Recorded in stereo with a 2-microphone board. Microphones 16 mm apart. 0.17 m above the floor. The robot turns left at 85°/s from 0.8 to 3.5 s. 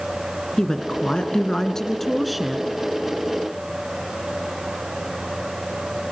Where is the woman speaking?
125° left, 1.9 m; by 2.7 s 30° right, 1.9 m.